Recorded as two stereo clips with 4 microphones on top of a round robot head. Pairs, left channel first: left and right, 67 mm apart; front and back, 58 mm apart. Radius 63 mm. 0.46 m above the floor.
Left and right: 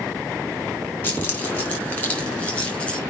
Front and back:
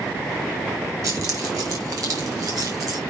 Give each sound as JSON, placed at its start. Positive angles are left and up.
{"t": 1.0, "sound": "keys jangling", "azimuth_deg": 150, "distance_m": 4.5}